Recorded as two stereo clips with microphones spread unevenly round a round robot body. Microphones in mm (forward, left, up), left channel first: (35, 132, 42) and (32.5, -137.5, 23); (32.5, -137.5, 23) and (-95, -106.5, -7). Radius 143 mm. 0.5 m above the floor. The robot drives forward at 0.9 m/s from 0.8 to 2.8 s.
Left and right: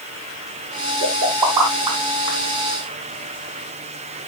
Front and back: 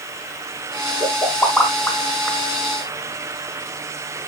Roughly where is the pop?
Right.